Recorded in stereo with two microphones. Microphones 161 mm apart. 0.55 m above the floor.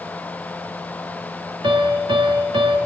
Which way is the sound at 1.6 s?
30° right (ahead or behind).